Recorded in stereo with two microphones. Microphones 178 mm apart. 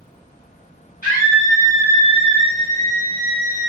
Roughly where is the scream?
Left.